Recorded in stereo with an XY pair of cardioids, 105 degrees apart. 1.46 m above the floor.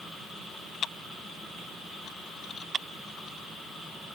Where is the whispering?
No whispering in this recording.